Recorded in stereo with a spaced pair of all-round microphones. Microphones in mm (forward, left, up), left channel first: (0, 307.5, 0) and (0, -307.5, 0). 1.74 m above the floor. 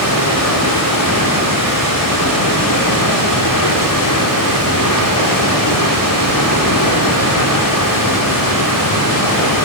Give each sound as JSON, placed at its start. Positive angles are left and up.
{"t": 0.0, "sound": "running water", "side_deg": 35, "distance_m": 4.0}